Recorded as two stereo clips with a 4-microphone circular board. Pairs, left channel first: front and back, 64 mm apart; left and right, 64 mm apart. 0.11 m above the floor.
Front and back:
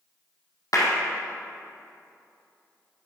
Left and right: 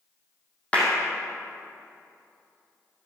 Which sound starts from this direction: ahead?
A clap, at 0.7 s.